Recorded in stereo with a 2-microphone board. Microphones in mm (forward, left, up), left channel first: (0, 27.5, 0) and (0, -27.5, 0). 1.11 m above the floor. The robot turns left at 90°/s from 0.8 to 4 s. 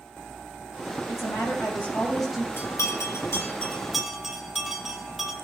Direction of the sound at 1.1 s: 110° left.